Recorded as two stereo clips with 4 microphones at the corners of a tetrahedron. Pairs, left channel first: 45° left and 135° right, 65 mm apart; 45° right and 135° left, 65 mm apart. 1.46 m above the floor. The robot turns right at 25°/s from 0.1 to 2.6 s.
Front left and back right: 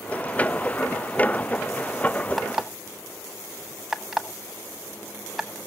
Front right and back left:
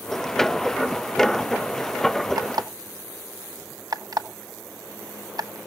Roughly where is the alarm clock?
Behind left.